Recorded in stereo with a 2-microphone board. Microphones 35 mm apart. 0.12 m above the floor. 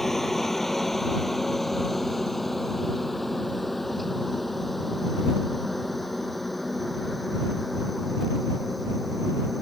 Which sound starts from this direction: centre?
A helicopter, at 0.0 s.